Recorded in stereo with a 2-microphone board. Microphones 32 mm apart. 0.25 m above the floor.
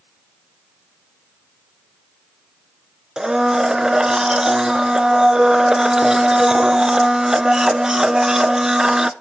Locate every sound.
3.2 s a blender: 20° right (ahead or behind), 0.5 m